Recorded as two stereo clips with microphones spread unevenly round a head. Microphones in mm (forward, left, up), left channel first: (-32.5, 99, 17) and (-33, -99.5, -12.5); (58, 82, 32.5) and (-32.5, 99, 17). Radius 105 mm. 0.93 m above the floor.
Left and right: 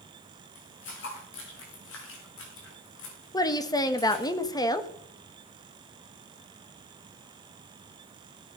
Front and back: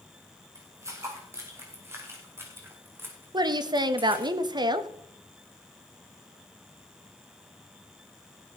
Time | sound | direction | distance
0.6 | footsteps | 110° left | 5.5 m
3.3 | a woman speaking | 165° left | 1.3 m